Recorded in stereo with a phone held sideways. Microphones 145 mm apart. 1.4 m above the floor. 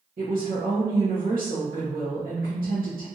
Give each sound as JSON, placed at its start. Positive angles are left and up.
{"t": 0.2, "sound": "a woman speaking", "side_deg": -75, "distance_m": 1.0}